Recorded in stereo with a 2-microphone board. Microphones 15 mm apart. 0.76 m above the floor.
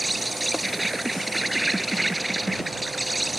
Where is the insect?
Centre (ahead or behind).